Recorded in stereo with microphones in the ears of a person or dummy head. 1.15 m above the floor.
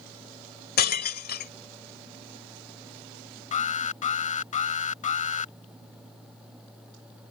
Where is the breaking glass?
50° left (ahead or behind).